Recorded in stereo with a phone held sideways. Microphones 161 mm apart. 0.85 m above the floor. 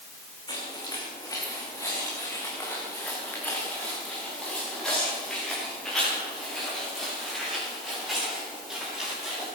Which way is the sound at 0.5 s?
25° left (ahead or behind).